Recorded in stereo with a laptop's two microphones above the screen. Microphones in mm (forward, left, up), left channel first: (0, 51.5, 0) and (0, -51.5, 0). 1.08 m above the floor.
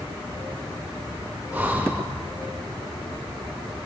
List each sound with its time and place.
1.5 s breathing: 15° right (ahead or behind), 1.6 m